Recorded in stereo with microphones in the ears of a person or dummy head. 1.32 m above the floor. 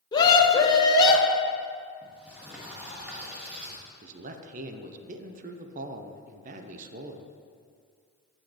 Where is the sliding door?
5° right (ahead or behind), 1.8 m.